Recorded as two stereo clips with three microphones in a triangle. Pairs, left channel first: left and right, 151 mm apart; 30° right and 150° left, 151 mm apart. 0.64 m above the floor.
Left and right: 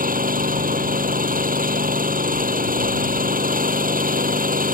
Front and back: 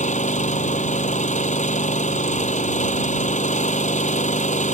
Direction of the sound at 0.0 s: 70° right.